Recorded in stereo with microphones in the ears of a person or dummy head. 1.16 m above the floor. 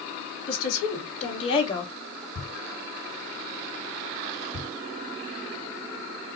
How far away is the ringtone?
No ringtone in this recording.